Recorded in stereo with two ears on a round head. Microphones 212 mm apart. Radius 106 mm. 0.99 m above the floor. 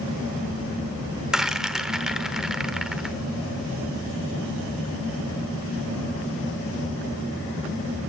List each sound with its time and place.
1.3 s a rattle: 5° right (ahead or behind), 1.0 m